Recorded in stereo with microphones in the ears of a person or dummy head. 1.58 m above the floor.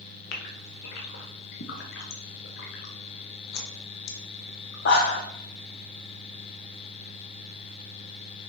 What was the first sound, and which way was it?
A gasp, 70° left (ahead or behind).